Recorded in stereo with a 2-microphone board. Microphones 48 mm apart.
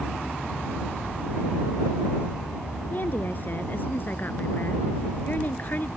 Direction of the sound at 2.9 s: 45° left (ahead or behind).